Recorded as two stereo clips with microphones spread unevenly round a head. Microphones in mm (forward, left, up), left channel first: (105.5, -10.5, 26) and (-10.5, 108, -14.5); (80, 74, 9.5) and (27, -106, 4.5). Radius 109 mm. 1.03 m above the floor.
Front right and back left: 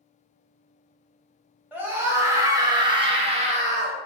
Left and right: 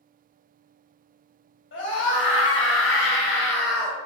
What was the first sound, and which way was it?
A scream, 60° left.